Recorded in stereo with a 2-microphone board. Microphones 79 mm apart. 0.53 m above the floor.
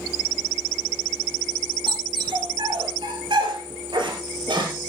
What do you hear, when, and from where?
1.9 s a dog barking: 85° right, 3 m; by 4.7 s 80° right, 4.5 m